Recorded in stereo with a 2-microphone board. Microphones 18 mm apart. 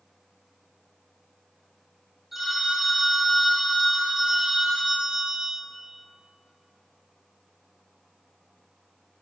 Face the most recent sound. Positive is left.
turn(degrees=-10)  # may be behind; listen again after turning